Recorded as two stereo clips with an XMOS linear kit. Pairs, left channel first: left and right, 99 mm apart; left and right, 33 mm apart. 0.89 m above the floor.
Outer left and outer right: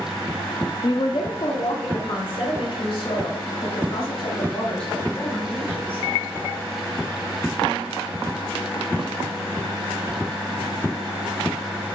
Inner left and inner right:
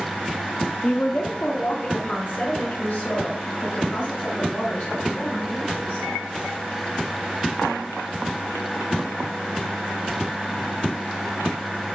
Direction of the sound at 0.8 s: 55° left (ahead or behind).